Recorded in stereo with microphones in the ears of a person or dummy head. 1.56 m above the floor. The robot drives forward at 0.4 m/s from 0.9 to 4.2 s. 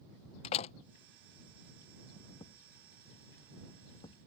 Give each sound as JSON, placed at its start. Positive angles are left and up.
{"t": 0.4, "sound": "a door slam", "side_deg": 40}
{"t": 2.4, "sound": "a thud", "side_deg": 30}